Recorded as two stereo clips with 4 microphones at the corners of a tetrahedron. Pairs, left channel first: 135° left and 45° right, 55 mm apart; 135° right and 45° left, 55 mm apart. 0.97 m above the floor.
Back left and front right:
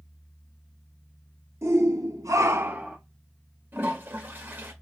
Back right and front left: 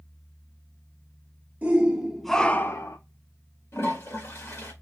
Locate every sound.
1.6 s a shout: 20° right, 1.3 m; by 3.0 s 120° right, 0.8 m
3.7 s a toilet flushing: 100° right, 1.5 m